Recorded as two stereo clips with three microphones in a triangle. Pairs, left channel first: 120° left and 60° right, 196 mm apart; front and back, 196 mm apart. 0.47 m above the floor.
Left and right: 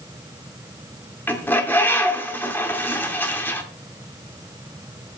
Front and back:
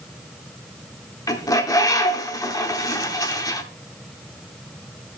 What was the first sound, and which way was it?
A bird, 50° left.